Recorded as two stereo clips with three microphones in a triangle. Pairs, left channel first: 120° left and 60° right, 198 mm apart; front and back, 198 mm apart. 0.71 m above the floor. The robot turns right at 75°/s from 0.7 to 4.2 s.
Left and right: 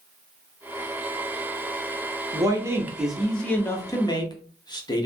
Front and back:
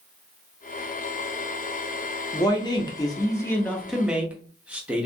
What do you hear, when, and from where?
2.3 s a man speaking: 30° right, 0.6 m; by 5.1 s 110° left, 0.6 m